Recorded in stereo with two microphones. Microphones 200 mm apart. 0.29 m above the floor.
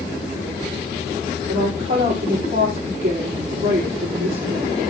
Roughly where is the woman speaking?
Right.